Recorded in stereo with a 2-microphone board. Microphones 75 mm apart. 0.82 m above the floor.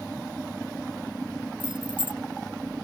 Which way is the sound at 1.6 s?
85° right.